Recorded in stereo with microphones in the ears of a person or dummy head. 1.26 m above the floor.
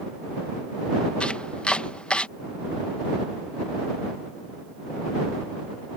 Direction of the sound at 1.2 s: 5° left (ahead or behind).